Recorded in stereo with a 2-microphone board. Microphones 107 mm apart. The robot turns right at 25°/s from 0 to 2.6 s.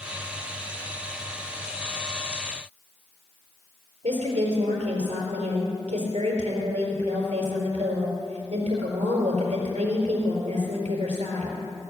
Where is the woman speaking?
75° right (ahead or behind), 4.5 m.